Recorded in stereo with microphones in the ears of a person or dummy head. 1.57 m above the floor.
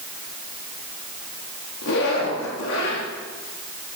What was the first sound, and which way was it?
A zipper, 75° left (ahead or behind).